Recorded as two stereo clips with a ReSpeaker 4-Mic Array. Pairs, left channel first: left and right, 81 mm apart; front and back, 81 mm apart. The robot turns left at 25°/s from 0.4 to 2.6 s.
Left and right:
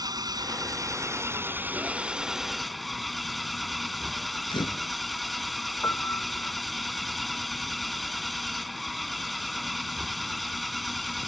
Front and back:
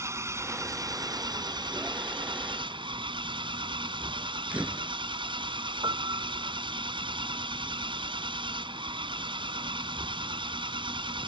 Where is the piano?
150° left.